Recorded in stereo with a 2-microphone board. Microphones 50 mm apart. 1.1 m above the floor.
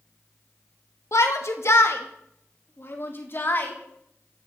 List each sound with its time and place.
1.1 s a shout: 65° left (ahead or behind), 2.0 m; by 3.7 s 40° left (ahead or behind), 3.5 m